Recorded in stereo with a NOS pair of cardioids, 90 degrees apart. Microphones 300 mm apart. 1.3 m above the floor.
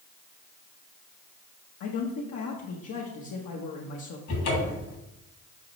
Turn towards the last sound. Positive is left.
turn(degrees=70)